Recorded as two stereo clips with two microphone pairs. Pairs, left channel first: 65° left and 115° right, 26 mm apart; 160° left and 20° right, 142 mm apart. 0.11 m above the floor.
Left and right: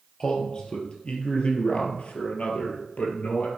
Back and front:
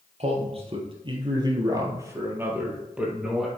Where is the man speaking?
5° left, 3 m; by 3.5 s 65° left, 3.5 m.